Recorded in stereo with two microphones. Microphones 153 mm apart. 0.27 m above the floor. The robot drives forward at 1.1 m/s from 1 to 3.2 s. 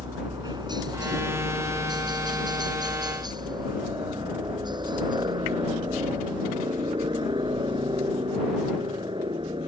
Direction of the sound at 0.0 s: 25° right (ahead or behind).